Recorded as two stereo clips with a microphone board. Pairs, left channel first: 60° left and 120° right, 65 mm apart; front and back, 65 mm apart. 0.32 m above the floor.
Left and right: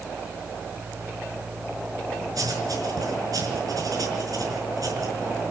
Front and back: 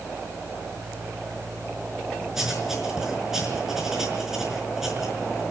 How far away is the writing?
About 5.5 m.